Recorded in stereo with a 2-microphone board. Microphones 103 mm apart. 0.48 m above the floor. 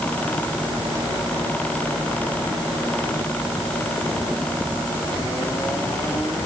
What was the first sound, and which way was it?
Only background noise.